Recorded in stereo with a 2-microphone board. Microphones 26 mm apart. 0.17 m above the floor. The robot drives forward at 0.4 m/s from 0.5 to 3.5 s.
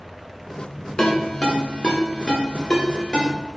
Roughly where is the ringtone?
Left.